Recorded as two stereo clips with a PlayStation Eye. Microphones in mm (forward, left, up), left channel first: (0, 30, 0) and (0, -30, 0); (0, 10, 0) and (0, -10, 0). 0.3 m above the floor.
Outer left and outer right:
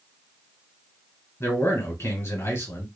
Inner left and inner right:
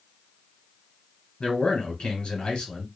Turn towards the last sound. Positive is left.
turn(degrees=50)  # may be behind; listen again after turning